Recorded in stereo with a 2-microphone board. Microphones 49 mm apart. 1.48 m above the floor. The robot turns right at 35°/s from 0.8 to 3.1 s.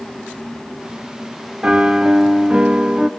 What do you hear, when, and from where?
1.6 s a piano: 25° right (ahead or behind), 0.9 m; by 3.1 s 15° right (ahead or behind), 0.9 m